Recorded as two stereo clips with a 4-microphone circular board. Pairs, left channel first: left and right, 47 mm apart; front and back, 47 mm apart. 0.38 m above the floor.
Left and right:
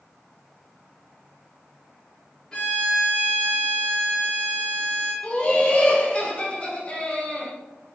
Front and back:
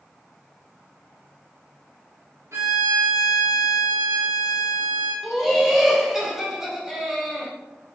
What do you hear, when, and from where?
2.5 s a violin: 160° left, 1.5 m
5.2 s laughter: 100° left, 0.9 m